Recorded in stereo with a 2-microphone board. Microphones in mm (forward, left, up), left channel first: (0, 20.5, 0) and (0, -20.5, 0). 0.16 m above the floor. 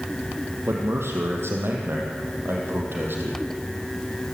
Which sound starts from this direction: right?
A man speaking, at 0.7 s.